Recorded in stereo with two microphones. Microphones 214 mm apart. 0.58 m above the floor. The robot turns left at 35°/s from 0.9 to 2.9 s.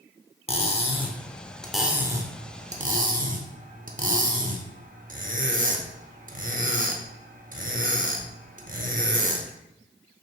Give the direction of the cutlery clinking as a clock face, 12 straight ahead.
11 o'clock.